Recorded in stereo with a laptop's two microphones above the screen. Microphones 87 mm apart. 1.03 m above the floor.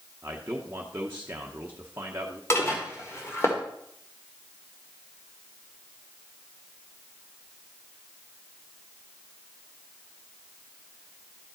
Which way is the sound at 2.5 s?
30° left (ahead or behind).